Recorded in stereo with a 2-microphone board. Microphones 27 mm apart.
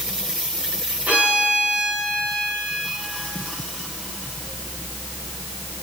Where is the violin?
60° right (ahead or behind), 4 m.